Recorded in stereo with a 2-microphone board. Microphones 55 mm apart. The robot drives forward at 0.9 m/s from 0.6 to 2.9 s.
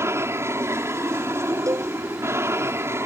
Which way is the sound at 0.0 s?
50° right (ahead or behind).